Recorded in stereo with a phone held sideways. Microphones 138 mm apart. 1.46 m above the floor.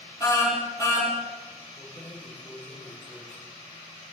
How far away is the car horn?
About 8 m.